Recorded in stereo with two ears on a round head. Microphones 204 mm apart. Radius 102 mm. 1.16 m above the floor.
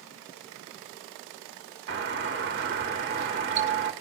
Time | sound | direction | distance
1.9 | a doorbell | 50° right (ahead or behind) | 1.7 m